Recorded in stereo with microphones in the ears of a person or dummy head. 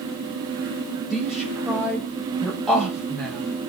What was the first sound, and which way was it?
A woman speaking, centre (ahead or behind).